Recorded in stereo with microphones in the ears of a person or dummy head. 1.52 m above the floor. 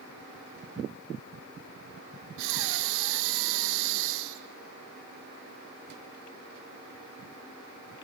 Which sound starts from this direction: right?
Breathing, at 2.4 s.